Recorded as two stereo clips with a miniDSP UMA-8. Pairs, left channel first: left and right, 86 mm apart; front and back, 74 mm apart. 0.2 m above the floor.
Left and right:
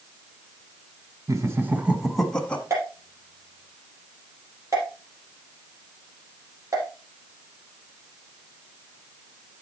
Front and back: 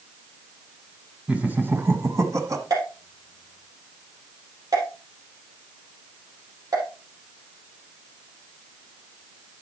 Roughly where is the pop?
Behind right.